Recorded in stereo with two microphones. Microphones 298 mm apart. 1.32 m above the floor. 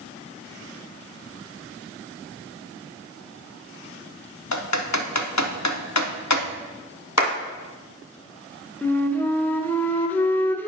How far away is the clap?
About 1.5 m.